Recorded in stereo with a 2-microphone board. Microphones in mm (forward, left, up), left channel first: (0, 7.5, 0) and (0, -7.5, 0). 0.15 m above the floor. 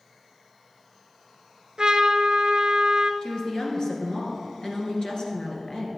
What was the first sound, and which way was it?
A trumpet, 60° right (ahead or behind).